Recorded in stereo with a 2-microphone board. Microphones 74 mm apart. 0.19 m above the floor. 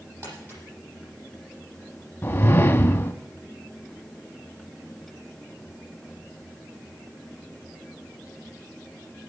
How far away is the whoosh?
About 0.9 m.